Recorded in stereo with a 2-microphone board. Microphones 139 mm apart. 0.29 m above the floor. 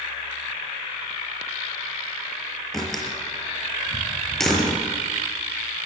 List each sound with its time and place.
2.7 s a door slam: 5° left (ahead or behind), 5.5 m